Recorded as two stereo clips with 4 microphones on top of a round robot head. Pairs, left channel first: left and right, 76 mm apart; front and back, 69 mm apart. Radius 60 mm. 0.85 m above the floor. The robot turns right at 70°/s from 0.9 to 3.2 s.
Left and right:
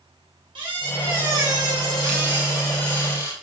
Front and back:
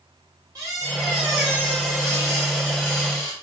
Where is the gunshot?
No gunshot in this recording.